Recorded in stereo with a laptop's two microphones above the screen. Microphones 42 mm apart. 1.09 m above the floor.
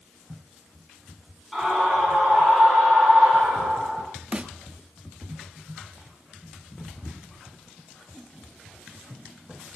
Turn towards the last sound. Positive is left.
turn(degrees=-25)  # may be behind; listen again after turning